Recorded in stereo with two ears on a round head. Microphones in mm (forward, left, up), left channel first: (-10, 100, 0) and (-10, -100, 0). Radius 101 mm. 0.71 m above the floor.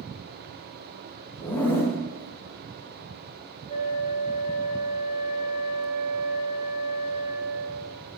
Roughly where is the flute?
Centre.